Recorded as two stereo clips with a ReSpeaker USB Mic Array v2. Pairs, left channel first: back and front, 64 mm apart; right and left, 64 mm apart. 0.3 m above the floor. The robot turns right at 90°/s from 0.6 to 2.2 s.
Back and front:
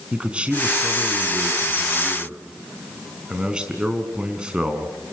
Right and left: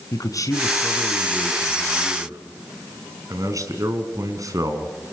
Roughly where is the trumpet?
I don't hear a trumpet.